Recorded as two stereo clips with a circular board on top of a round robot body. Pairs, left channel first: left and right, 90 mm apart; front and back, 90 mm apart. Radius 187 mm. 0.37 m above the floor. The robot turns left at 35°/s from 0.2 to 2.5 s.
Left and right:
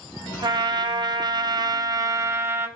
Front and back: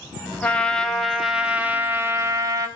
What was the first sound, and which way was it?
A trumpet, 70° right.